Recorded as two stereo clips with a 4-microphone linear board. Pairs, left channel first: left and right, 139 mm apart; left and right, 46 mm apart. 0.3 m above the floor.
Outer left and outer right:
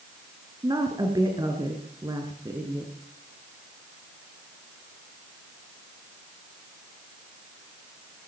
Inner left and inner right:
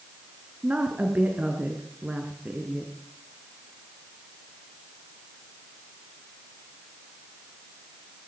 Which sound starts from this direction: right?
A woman speaking, at 0.6 s.